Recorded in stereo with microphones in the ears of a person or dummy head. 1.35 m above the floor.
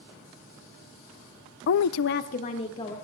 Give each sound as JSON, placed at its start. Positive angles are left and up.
{"t": 1.7, "sound": "a woman speaking", "side_deg": 50, "distance_m": 0.5}